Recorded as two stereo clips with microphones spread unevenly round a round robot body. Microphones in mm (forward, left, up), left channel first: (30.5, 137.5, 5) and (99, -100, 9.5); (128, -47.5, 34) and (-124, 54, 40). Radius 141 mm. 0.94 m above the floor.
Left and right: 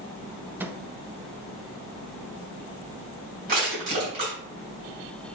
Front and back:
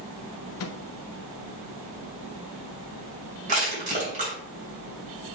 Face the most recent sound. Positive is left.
turn(degrees=-135)